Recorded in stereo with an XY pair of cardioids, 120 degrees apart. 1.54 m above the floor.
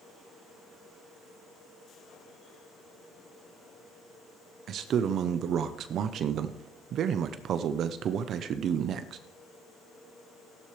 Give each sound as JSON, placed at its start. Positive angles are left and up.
{"t": 4.7, "sound": "a man speaking", "azimuth_deg": -60, "distance_m": 0.7}